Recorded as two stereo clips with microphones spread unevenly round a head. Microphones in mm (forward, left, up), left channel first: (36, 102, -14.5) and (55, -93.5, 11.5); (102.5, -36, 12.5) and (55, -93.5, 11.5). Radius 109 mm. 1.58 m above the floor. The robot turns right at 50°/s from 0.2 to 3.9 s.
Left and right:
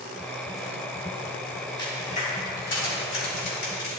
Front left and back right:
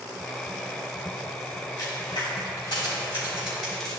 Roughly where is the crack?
Ahead left.